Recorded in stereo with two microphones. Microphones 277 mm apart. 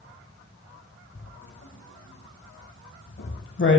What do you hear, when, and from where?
1.1 s writing: 45° left (ahead or behind), 0.8 m